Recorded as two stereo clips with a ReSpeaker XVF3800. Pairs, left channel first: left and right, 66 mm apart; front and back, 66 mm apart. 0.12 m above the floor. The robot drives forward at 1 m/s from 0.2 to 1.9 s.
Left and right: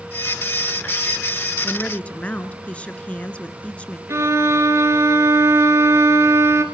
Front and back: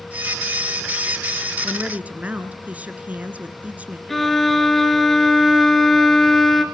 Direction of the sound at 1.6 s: 120° left.